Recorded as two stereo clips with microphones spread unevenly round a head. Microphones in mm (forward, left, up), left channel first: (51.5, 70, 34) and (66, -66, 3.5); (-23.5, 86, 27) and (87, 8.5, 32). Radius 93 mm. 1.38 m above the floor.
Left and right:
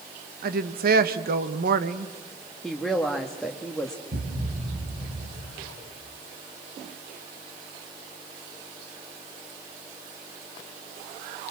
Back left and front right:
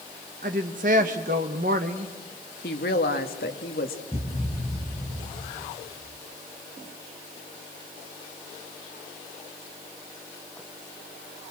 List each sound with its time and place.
0.4 s a woman speaking: 80° right, 1.3 m
2.6 s a woman speaking: straight behind, 1.7 m
4.1 s a thud: 120° right, 4.5 m